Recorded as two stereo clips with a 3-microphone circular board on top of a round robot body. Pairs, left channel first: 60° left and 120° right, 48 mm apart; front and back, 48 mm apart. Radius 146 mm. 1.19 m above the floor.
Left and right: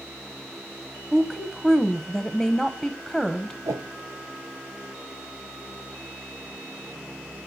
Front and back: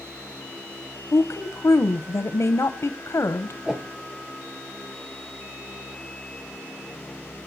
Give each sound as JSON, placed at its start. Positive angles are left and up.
{"t": 1.1, "sound": "a woman speaking", "azimuth_deg": -35, "distance_m": 0.6}
{"t": 3.6, "sound": "a whoosh", "azimuth_deg": -100, "distance_m": 0.5}